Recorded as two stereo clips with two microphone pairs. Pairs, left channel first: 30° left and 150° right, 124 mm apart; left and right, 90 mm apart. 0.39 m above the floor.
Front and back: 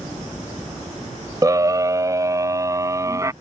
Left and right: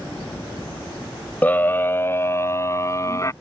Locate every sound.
1.4 s a scream: 155° left; by 3.3 s 145° left